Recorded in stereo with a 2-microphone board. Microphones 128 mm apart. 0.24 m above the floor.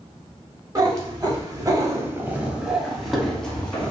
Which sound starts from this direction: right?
A cat meowing, at 0.8 s.